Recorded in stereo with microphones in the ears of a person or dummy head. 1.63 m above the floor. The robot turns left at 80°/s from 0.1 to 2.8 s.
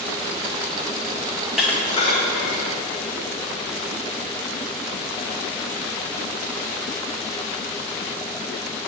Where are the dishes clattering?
15° right (ahead or behind), 1.4 m; by 2.6 s 65° left (ahead or behind), 1.4 m.